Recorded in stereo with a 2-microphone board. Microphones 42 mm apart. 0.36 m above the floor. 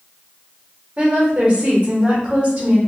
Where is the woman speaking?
30° right (ahead or behind), 1.1 m.